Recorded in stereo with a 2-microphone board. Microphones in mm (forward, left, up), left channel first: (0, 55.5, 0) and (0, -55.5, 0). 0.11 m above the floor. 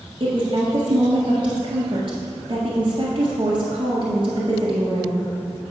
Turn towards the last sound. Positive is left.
turn(degrees=-45)  # may be behind; listen again after turning